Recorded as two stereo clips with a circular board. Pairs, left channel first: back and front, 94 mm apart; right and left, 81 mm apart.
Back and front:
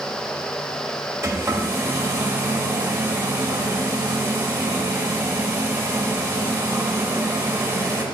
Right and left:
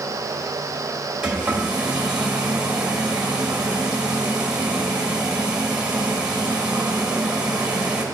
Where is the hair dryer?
25° left, 1.0 m.